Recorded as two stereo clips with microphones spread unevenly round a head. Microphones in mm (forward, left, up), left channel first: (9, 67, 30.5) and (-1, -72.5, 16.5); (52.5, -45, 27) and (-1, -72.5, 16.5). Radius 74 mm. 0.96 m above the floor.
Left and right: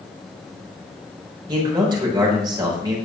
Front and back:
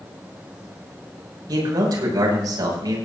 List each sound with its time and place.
1.5 s a man speaking: 155° right, 7 m